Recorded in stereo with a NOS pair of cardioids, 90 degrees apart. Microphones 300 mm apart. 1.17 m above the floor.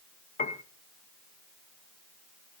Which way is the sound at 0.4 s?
25° left.